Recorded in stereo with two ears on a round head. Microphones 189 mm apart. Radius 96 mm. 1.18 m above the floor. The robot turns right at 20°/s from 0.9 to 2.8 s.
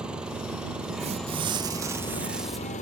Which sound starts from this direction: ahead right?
Tearing paper, at 1.0 s.